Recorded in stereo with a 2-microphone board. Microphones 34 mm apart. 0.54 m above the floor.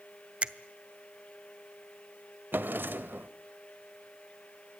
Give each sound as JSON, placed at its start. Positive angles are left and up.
{"t": 0.4, "sound": "a finger snap", "side_deg": -35, "distance_m": 0.8}
{"t": 2.5, "sound": "a drawer", "side_deg": -75, "distance_m": 1.0}